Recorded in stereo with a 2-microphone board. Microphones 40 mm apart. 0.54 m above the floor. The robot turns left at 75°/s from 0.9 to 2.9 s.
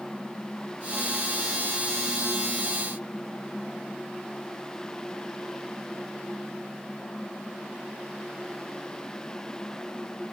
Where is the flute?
I don't hear a flute.